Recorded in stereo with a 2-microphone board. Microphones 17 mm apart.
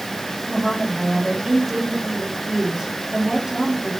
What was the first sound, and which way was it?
A woman speaking, 15° right (ahead or behind).